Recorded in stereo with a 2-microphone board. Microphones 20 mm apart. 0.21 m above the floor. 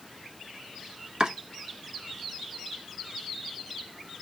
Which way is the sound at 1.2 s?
40° right (ahead or behind).